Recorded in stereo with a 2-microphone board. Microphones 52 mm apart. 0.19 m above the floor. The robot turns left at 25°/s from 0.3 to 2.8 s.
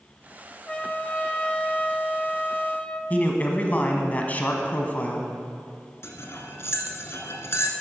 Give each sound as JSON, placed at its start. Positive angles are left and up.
{"t": 0.7, "sound": "a trumpet", "side_deg": 20, "distance_m": 0.5}
{"t": 3.1, "sound": "a man speaking", "side_deg": 30, "distance_m": 1.2}
{"t": 6.0, "sound": "cutlery clinking", "side_deg": 55, "distance_m": 1.2}